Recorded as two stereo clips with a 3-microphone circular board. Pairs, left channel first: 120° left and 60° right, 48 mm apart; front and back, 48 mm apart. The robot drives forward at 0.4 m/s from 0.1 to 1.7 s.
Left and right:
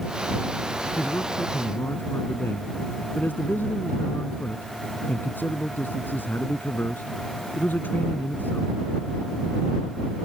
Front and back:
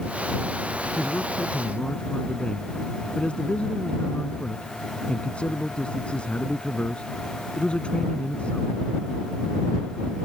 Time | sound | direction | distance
1.0 | a man speaking | 70° left | ?